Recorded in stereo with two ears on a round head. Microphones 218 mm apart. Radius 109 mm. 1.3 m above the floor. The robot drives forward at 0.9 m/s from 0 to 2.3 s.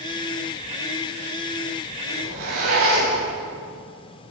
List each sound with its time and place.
2.1 s a zipper: 65° right (ahead or behind), 9.5 m